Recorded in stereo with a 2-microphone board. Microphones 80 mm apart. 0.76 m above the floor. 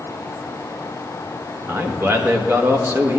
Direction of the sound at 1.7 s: 35° right (ahead or behind).